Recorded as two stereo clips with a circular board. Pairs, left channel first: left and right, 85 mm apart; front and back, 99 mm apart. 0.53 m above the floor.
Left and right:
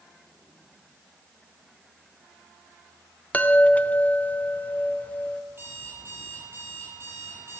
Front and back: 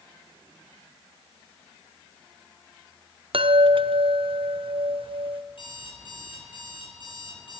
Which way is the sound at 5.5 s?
30° right.